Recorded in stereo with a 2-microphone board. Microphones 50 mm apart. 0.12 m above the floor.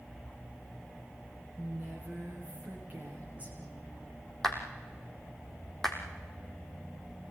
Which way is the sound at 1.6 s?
30° right (ahead or behind).